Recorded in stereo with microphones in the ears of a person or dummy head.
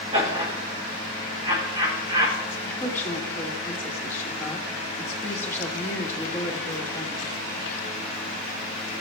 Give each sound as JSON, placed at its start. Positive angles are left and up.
{"t": 0.1, "sound": "laughter", "side_deg": -25, "distance_m": 2.5}
{"t": 2.6, "sound": "a woman speaking", "side_deg": 20, "distance_m": 1.4}